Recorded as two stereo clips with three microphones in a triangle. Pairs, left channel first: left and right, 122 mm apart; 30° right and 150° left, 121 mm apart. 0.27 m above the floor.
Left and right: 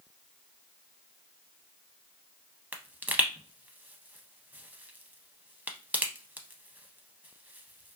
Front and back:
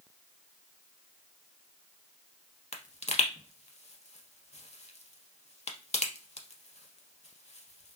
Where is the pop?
15° right, 0.5 m.